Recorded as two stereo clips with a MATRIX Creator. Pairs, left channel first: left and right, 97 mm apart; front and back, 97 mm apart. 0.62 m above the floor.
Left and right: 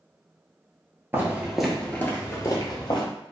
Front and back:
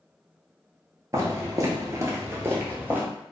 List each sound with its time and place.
1.1 s footsteps: 145° right, 0.7 m; by 3.0 s 110° left, 1.0 m